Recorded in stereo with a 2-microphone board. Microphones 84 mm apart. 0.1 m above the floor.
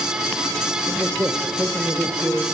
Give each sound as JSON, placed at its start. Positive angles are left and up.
{"t": 0.9, "sound": "a man speaking", "side_deg": -35, "distance_m": 3.0}